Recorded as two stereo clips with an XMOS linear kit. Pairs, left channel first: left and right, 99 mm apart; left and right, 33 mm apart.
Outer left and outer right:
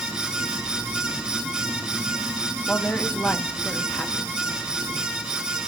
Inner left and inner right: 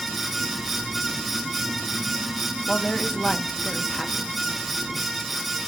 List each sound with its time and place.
2.7 s a woman speaking: 15° left (ahead or behind), 1.1 m